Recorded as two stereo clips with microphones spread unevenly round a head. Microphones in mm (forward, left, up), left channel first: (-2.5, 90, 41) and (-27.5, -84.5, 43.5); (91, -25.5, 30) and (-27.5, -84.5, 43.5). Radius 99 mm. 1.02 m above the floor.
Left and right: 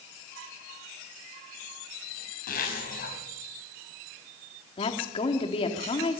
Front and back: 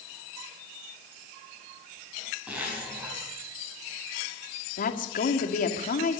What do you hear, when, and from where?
2.5 s a zipper: 125° left, 4.5 m
4.8 s a woman speaking: 20° left, 1.9 m